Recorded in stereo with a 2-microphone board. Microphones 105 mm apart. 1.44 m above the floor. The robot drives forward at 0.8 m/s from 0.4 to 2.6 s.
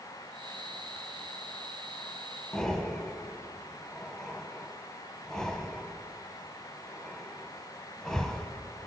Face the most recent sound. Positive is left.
turn(degrees=5)  # may be behind; listen again after turning